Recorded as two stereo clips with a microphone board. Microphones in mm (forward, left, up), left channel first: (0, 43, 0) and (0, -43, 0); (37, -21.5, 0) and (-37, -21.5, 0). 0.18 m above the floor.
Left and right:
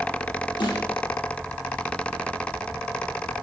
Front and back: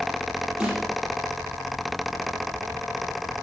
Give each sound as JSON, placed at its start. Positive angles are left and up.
{"t": 0.6, "sound": "a snare drum", "azimuth_deg": 100, "distance_m": 6.0}